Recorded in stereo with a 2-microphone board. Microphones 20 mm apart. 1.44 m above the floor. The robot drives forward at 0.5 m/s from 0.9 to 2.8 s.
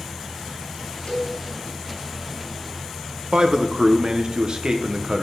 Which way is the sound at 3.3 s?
45° right (ahead or behind).